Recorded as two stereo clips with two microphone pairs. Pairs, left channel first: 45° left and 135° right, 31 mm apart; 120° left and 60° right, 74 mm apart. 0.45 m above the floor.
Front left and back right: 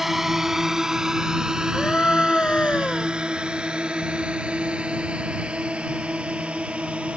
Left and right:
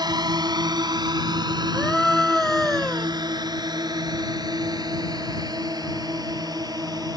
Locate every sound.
0.0 s a drone: 55° right; by 7.2 s 90° right
1.7 s a scream: 30° left